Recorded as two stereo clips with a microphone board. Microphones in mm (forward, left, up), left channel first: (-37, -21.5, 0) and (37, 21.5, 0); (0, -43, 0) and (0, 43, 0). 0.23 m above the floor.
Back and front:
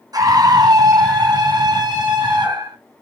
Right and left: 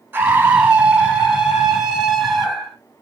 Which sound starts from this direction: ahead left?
A scream, at 0.1 s.